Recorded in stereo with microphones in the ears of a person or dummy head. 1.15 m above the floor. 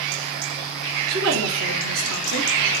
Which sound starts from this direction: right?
A woman speaking, at 1.1 s.